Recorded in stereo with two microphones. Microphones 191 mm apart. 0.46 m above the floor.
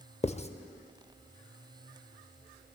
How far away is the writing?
About 0.6 m.